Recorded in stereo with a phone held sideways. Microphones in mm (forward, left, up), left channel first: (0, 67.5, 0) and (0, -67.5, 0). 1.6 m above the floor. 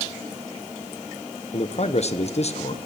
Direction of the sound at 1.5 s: 55° left (ahead or behind).